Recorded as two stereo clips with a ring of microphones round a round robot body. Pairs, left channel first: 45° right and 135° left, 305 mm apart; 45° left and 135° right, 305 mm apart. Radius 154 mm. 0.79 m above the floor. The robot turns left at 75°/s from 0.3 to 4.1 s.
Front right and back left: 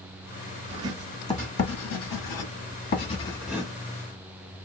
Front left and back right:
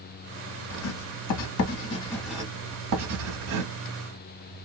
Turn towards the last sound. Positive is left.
turn(degrees=175)